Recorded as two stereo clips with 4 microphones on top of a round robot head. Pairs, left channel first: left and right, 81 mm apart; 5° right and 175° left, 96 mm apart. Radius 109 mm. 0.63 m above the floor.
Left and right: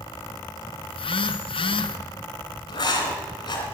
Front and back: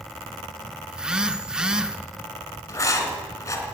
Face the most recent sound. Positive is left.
turn(degrees=55)